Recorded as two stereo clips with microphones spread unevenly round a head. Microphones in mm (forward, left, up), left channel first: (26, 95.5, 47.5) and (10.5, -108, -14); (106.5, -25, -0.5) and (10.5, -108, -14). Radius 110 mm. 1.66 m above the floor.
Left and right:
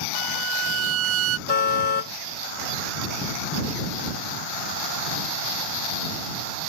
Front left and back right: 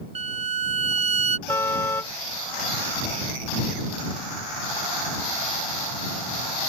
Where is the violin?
100° right.